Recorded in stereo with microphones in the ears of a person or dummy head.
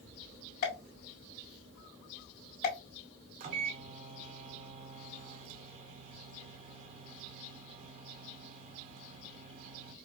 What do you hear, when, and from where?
0.6 s a pop: 50° left (ahead or behind), 2.5 m
3.4 s a microwave: 40° right (ahead or behind), 0.7 m